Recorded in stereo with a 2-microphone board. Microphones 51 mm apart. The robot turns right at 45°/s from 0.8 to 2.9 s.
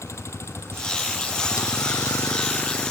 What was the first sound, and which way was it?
A vehicle, 75° left (ahead or behind).